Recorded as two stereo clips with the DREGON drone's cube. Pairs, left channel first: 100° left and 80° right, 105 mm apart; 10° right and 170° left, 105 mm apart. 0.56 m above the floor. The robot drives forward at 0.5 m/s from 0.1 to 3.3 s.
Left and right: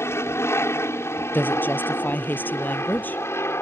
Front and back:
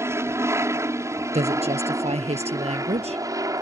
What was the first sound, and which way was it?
An aircraft, 135° left.